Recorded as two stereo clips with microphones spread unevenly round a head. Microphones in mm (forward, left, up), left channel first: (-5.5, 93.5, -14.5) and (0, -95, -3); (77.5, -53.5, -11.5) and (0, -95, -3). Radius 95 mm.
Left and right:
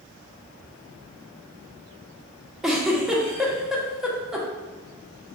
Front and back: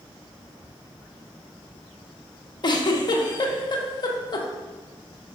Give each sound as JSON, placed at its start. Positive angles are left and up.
{"t": 2.6, "sound": "a giggle", "azimuth_deg": 0, "distance_m": 0.7}